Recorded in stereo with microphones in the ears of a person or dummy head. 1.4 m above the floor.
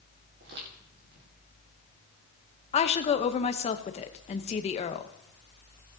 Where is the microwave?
No microwave in this recording.